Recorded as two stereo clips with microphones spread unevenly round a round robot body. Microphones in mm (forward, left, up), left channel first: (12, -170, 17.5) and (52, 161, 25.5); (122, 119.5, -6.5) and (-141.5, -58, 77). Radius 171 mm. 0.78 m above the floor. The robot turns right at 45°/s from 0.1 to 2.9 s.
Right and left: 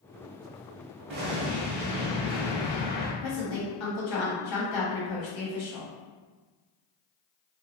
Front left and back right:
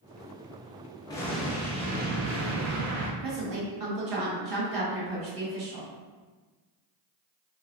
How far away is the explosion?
About 0.6 m.